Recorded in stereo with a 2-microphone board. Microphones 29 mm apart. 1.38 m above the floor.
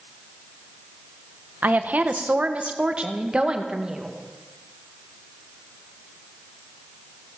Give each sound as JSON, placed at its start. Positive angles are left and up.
{"t": 1.6, "sound": "a woman speaking", "side_deg": -55, "distance_m": 1.3}